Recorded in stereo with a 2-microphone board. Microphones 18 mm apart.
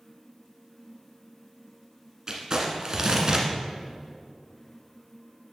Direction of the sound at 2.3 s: 40° right (ahead or behind).